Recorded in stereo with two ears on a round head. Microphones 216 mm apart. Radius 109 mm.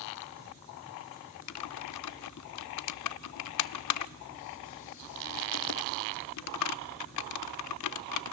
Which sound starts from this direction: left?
Typing on a keyboard, at 1.5 s.